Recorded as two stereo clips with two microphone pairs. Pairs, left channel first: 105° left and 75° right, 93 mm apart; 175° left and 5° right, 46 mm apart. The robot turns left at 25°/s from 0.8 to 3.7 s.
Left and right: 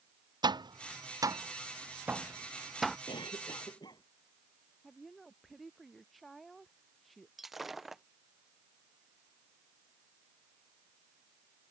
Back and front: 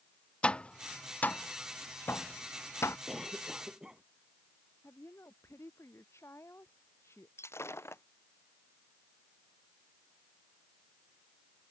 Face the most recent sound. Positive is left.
turn(degrees=-165)